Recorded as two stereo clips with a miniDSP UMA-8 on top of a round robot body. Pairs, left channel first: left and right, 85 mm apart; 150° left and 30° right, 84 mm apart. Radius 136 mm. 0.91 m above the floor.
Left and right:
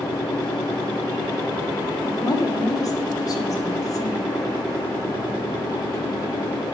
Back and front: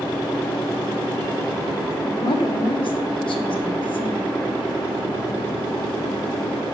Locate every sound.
2.0 s a woman speaking: 140° left, 1.9 m